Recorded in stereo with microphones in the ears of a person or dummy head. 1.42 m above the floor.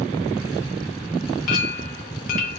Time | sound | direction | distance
1.5 | a clink | 45° left (ahead or behind) | 0.9 m